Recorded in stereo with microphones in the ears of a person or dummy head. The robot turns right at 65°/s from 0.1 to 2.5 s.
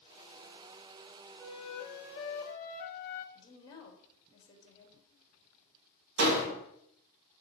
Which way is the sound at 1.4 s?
20° right.